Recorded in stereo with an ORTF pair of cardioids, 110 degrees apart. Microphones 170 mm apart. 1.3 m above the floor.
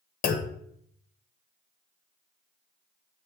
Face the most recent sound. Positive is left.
turn(degrees=60)